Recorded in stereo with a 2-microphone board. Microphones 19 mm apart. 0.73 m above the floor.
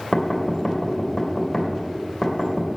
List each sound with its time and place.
0.1 s knocking: 20° left (ahead or behind), 2.5 m